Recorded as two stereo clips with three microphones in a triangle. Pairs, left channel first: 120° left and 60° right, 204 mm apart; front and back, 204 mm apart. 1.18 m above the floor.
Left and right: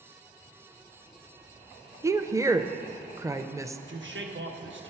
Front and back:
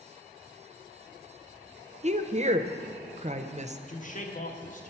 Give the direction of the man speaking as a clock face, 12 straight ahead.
2 o'clock.